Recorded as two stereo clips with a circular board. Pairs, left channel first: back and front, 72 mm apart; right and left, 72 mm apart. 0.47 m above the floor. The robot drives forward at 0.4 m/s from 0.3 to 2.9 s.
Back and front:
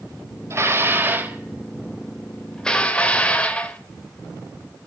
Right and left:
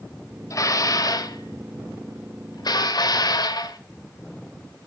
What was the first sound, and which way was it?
Dishes clattering, 50° right.